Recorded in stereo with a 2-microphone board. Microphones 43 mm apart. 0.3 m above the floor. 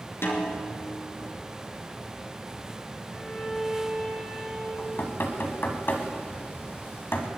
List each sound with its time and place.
0.2 s a snare drum: 75° left (ahead or behind), 3 m
3.1 s a violin: 10° left (ahead or behind), 3.5 m
4.8 s knocking: 60° left (ahead or behind), 1.8 m